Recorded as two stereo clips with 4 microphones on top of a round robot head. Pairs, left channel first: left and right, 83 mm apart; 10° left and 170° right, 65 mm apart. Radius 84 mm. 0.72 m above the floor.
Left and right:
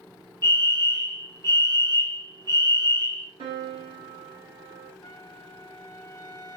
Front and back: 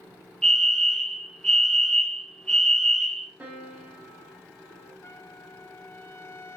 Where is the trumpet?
50° left, 3.5 m.